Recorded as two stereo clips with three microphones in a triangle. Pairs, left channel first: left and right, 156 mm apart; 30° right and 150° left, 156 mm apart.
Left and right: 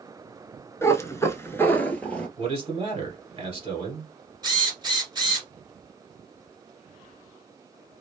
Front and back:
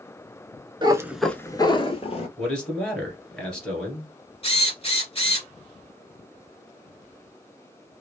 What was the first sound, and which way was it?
A cat meowing, 145° left.